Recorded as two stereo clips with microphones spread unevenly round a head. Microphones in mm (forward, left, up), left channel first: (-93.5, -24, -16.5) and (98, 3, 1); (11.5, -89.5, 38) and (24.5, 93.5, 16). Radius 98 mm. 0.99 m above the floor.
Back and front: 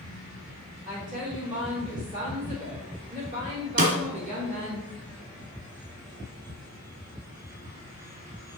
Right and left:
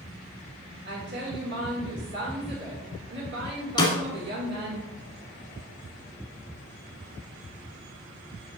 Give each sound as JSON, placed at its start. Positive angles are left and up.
{"t": 0.8, "sound": "a woman speaking", "azimuth_deg": 65, "distance_m": 3.0}
{"t": 3.8, "sound": "a snare drum", "azimuth_deg": -30, "distance_m": 1.8}